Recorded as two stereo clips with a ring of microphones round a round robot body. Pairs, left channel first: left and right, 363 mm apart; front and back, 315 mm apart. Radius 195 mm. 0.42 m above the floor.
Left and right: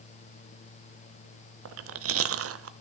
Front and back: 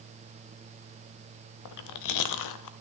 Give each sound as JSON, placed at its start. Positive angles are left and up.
{"t": 1.6, "sound": "chewing", "azimuth_deg": -35, "distance_m": 0.6}